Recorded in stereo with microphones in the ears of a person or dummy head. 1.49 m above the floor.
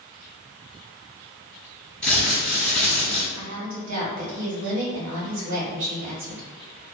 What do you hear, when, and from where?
2.0 s crumpling: 5° left (ahead or behind), 1.6 m
3.4 s a woman speaking: 70° right (ahead or behind), 1.4 m